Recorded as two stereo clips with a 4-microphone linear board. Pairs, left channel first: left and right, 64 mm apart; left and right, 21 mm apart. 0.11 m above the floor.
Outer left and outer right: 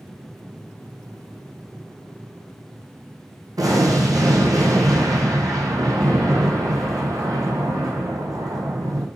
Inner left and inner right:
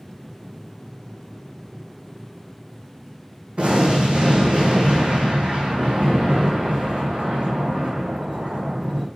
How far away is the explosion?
About 1.4 m.